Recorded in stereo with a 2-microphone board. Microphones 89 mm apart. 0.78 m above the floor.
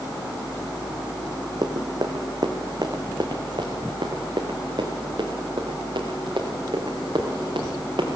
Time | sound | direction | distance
1.6 | running footsteps | 50° right (ahead or behind) | 2.5 m